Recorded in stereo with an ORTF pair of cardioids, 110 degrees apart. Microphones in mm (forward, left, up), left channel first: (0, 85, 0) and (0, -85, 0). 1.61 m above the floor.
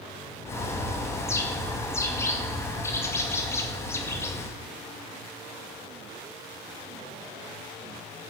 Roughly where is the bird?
Ahead.